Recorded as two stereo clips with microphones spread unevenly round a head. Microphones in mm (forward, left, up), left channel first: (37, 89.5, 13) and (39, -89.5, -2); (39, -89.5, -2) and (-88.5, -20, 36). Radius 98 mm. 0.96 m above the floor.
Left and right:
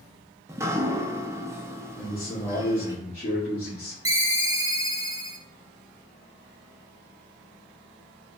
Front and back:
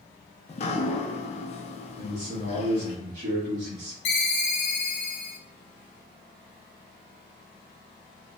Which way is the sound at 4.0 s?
15° right.